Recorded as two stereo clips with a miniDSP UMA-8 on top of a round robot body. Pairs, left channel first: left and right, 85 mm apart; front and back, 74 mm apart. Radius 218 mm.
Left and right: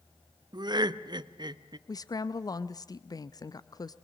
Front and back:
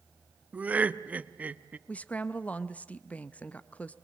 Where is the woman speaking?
65° left, 0.7 m.